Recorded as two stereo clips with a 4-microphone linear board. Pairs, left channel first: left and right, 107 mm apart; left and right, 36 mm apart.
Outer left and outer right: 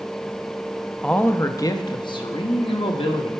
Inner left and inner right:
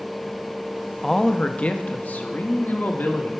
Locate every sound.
1.0 s a man speaking: 10° left (ahead or behind), 0.6 m; by 3.3 s 65° left (ahead or behind), 1.5 m